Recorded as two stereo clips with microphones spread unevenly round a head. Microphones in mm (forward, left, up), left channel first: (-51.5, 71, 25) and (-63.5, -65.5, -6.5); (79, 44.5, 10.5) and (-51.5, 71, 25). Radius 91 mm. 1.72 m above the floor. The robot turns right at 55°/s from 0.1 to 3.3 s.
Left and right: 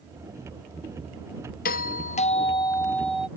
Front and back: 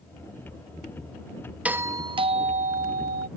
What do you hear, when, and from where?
1.6 s a doorbell: 90° left; by 3.3 s straight behind